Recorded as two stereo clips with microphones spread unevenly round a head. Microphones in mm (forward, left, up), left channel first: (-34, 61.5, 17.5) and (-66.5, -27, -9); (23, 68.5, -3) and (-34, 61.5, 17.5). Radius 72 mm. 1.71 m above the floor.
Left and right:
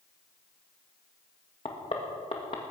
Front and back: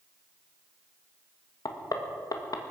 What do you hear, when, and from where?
1.6 s knocking: 25° left, 1.8 m